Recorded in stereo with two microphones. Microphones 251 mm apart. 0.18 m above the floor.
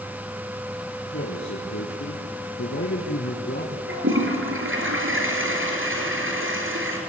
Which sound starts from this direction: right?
A toilet flushing, at 3.9 s.